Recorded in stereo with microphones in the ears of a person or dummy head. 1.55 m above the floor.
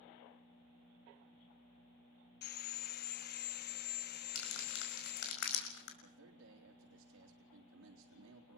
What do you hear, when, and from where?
2.4 s sawing: 50° left (ahead or behind), 0.9 m
4.3 s crumpling: 70° left (ahead or behind), 5.5 m
6.0 s a man speaking: 85° right, 3.5 m